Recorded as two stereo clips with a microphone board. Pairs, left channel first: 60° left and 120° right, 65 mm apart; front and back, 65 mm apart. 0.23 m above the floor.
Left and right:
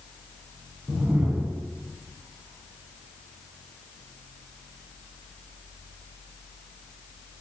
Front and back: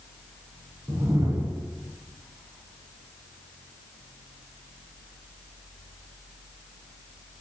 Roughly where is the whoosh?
Behind.